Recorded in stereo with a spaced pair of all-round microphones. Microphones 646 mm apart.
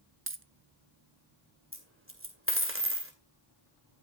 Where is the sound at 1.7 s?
20° right (ahead or behind), 2 m.